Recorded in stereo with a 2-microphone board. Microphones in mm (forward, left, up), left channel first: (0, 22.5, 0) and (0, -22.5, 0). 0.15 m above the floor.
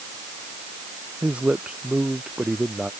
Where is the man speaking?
30° right (ahead or behind); by 2.9 s 15° right (ahead or behind).